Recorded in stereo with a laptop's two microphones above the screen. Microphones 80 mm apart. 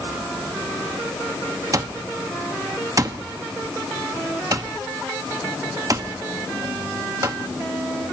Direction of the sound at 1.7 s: 40° right (ahead or behind).